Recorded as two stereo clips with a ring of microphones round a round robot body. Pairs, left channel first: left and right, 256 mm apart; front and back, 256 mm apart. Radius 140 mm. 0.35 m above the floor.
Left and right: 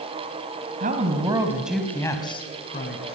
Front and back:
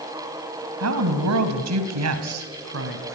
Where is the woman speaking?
150° right, 3 m; by 3.2 s 145° left, 4 m.